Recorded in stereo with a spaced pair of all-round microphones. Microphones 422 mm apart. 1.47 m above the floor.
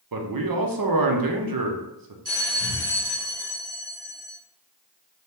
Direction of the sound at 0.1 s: 55° right (ahead or behind).